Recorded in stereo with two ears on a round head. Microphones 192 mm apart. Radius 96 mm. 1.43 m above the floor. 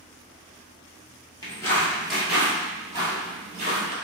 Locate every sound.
1.4 s footsteps: 20° left (ahead or behind), 1.5 m; by 4.0 s 40° right (ahead or behind), 1.9 m